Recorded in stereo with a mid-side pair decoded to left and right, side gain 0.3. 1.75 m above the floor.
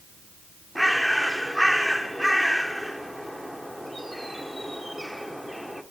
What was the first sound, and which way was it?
A bird, 10° right.